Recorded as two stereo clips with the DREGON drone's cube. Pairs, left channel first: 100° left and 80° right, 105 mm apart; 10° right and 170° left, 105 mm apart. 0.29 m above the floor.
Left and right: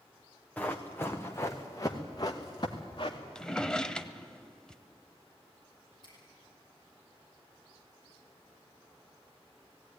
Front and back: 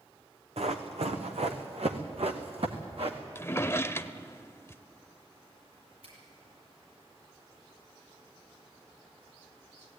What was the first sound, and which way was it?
Running footsteps, 175° left.